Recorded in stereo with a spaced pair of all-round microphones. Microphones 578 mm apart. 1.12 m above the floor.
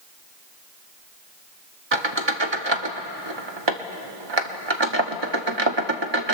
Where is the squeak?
50° right (ahead or behind), 1.0 m.